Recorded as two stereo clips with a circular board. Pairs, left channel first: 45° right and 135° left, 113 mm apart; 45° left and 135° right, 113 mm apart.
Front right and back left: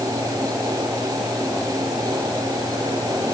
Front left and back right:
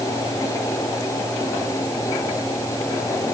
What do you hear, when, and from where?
Only background noise.